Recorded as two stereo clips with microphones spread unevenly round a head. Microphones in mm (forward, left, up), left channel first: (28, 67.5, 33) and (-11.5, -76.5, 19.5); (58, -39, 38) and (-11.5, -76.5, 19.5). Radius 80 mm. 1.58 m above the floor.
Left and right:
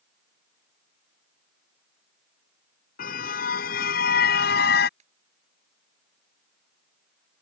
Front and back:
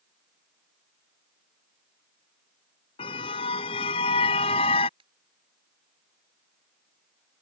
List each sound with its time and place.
3.0 s a car horn: 45° left; by 4.9 s 55° left
5.0 s a ringtone: 155° right